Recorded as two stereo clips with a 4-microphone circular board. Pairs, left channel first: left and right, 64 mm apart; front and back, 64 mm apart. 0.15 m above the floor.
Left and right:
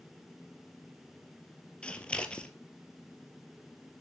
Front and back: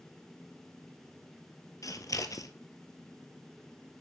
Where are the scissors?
15° left, 1.0 m.